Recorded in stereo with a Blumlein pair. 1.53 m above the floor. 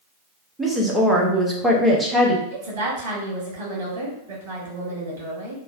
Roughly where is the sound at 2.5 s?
Ahead right.